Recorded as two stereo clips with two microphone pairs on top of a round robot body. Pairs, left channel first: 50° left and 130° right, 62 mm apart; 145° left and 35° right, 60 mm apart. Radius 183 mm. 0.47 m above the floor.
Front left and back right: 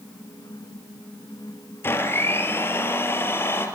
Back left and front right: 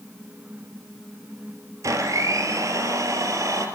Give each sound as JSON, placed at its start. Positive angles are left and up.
{"t": 1.8, "sound": "a blender", "azimuth_deg": -5, "distance_m": 3.5}